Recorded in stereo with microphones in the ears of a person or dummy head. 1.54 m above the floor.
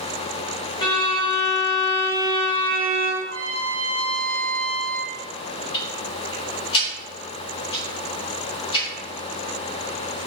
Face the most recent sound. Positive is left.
turn(degrees=35)  # may be behind; listen again after turning